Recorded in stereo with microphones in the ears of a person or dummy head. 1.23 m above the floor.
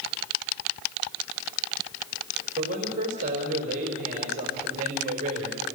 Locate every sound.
2.6 s a man speaking: 45° right (ahead or behind), 5 m